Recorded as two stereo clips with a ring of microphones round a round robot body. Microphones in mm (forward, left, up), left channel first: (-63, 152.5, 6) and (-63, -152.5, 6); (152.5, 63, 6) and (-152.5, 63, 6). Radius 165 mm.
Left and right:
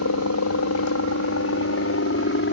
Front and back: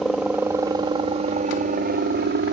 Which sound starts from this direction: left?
A helicopter, at 0.0 s.